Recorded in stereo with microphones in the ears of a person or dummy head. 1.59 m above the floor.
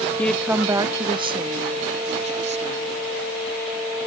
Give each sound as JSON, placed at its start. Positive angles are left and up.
{"t": 0.2, "sound": "a woman speaking", "side_deg": 10}